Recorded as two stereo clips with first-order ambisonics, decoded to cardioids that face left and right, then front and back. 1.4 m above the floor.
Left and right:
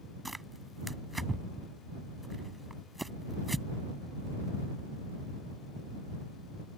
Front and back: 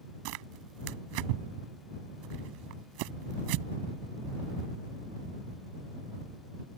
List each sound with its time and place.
0.2 s tearing paper: 175° right